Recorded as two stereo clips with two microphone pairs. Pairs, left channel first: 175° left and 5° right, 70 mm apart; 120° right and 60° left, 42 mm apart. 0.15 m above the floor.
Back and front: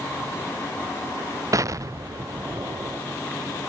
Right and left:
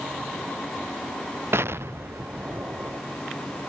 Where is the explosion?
35° left.